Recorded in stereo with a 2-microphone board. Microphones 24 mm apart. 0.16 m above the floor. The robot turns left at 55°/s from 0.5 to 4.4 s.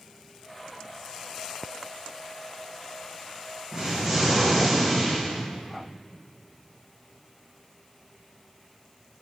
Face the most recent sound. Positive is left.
turn(degrees=180)